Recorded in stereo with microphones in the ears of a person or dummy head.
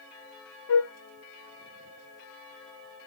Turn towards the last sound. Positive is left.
turn(degrees=80)